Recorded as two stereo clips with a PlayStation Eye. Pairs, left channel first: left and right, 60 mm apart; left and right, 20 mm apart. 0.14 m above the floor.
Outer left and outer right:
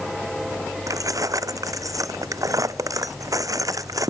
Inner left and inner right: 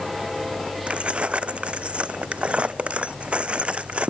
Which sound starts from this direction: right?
Keys jangling, at 0.9 s.